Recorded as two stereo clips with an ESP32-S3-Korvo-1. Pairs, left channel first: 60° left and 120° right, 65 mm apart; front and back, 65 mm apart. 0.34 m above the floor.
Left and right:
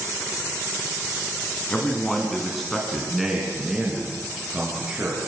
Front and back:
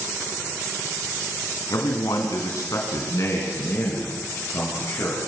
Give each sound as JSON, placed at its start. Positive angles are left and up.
{"t": 1.7, "sound": "a man speaking", "azimuth_deg": -15, "distance_m": 3.5}